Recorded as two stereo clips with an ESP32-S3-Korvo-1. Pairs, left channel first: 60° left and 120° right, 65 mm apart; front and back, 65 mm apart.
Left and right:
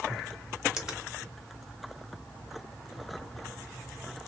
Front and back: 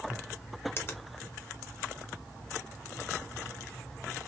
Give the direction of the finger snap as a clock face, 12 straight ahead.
1 o'clock.